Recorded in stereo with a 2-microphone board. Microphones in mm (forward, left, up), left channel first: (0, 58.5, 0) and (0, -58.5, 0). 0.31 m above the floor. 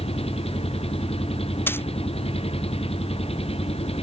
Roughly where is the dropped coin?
Centre.